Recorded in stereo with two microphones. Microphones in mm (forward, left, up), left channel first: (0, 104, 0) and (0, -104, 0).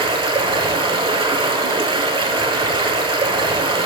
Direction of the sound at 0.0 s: 25° right (ahead or behind).